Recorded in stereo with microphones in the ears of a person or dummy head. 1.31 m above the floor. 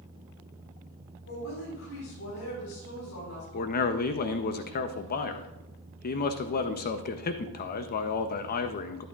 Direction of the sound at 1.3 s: 75° left (ahead or behind).